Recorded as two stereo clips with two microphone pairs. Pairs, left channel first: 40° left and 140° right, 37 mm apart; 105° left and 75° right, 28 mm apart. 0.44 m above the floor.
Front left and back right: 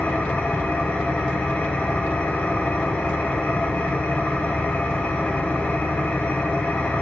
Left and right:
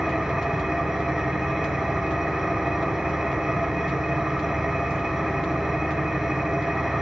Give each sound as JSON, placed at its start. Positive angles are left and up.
{"t": 0.0, "sound": "an engine running", "azimuth_deg": -5, "distance_m": 1.8}